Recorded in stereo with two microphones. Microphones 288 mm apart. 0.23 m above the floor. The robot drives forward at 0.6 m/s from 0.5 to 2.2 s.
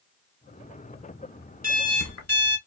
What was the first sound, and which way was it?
An alarm clock, 65° left (ahead or behind).